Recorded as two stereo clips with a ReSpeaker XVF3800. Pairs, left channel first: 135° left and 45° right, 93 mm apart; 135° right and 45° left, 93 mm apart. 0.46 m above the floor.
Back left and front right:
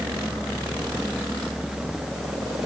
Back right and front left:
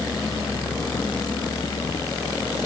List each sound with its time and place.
Only background noise.